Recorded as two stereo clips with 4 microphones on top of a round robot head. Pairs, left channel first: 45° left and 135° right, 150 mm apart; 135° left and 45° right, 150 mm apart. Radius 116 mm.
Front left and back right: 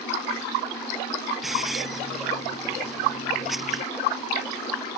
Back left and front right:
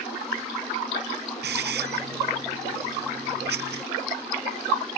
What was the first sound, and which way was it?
A hiss, 50° right.